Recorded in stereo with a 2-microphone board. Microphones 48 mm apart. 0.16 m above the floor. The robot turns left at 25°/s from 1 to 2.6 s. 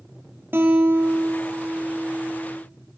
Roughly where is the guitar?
Behind right.